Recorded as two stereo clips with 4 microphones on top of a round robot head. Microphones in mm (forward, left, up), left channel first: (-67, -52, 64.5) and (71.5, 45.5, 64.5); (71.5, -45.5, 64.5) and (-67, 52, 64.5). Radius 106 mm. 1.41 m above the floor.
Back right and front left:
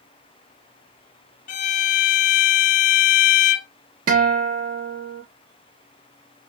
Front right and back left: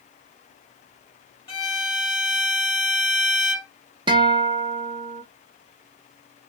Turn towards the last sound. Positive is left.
turn(degrees=80)